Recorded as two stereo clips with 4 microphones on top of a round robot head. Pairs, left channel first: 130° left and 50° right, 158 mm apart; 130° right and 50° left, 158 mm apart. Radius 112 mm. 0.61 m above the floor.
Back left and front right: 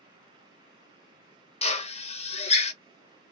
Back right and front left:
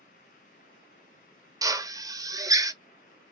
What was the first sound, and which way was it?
A drill, 110° left.